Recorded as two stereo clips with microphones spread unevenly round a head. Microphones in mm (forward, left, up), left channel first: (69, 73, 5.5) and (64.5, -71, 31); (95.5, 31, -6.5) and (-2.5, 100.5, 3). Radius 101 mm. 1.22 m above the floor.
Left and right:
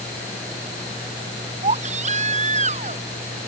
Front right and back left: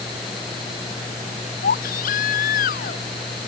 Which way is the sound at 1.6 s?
55° right.